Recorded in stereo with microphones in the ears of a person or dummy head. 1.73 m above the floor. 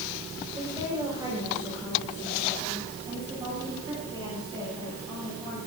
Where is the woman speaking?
20° right (ahead or behind), 6 m; by 5.6 s 25° right (ahead or behind), 11 m.